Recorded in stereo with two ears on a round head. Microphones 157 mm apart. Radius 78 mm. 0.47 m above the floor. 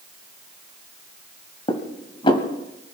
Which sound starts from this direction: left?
Dishes clattering, at 1.7 s.